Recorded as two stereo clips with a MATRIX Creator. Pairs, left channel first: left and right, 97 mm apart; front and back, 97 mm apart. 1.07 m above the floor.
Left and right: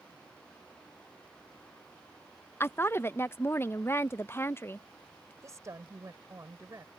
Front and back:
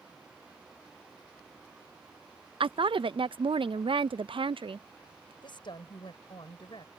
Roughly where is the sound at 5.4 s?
Ahead right.